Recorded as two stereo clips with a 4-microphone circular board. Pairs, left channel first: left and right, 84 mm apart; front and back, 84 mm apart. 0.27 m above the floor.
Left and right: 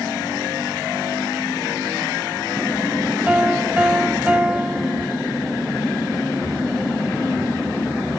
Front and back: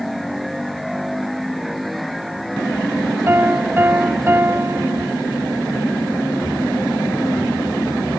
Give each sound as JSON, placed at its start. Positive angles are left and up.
{"t": 3.3, "sound": "a piano", "azimuth_deg": -150, "distance_m": 0.7}